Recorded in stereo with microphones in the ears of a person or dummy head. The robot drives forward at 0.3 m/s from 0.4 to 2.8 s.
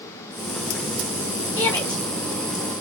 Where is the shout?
20° left (ahead or behind), 2.5 m; by 2.8 s 15° left (ahead or behind), 2.5 m.